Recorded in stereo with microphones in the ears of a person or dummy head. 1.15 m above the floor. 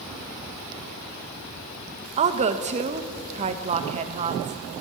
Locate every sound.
2.2 s a woman speaking: 35° right (ahead or behind), 1.3 m